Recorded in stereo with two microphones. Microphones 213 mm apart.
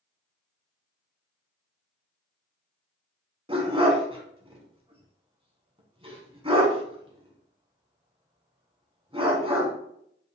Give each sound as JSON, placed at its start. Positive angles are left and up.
{"t": 3.5, "sound": "a dog barking", "side_deg": -25, "distance_m": 1.0}